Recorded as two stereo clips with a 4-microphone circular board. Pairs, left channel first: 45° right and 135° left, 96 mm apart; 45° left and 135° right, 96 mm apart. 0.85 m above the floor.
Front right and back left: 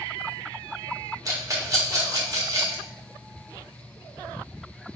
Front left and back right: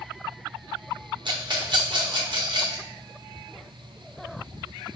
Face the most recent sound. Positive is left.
turn(degrees=-170)